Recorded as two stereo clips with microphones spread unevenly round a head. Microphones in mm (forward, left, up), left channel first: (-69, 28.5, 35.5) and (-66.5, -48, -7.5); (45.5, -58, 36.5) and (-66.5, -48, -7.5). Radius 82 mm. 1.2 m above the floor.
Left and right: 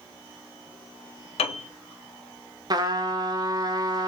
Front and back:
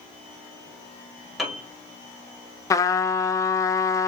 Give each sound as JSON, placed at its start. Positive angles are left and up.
{"t": 1.4, "sound": "a piano", "azimuth_deg": 100, "distance_m": 0.9}
{"t": 2.7, "sound": "a trumpet", "azimuth_deg": -75, "distance_m": 0.7}